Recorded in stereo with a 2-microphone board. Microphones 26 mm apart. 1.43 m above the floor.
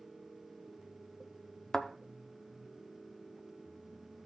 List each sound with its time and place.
1.7 s a thud: 25° left (ahead or behind), 1.0 m